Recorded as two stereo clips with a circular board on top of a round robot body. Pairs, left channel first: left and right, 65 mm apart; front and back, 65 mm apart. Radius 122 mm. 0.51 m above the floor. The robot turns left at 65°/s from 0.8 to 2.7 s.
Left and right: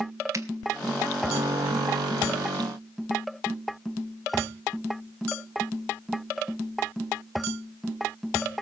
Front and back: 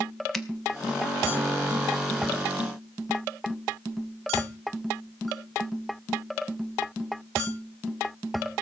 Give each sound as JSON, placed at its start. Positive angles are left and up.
{"t": 0.3, "sound": "a finger snap", "azimuth_deg": -90, "distance_m": 1.8}